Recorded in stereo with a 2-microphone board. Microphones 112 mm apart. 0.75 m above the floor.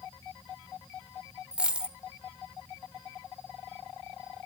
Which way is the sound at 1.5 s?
10° right (ahead or behind).